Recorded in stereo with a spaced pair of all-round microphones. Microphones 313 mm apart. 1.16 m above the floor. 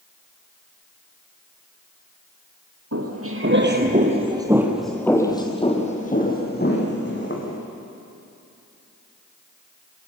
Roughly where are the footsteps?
Right.